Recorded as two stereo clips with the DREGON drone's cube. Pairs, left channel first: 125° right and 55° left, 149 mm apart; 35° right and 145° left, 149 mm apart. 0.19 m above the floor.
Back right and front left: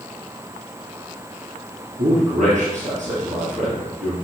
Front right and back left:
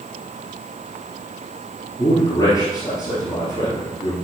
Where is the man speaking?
30° left, 3 m.